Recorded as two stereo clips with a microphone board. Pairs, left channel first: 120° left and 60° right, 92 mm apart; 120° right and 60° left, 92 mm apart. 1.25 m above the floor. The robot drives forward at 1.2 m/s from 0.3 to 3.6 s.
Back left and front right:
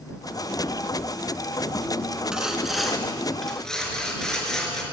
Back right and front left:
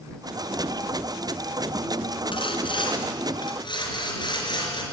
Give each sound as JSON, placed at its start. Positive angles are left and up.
{"t": 2.3, "sound": "sawing", "azimuth_deg": -140, "distance_m": 3.0}